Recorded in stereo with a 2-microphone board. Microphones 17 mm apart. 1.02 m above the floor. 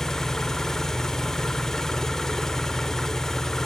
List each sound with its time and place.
0.0 s an engine running: 25° left (ahead or behind), 0.7 m